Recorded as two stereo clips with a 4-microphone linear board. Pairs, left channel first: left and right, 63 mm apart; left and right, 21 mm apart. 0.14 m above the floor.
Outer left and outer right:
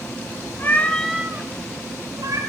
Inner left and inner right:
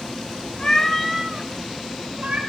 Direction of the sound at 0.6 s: 35° left (ahead or behind).